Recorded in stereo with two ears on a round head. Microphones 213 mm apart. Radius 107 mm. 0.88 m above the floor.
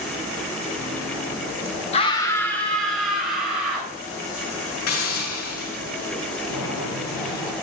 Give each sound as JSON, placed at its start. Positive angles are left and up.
{"t": 1.9, "sound": "a scream", "side_deg": 25, "distance_m": 0.9}
{"t": 4.9, "sound": "a hiss", "side_deg": 80, "distance_m": 6.0}
{"t": 6.5, "sound": "boiling", "side_deg": 80, "distance_m": 4.5}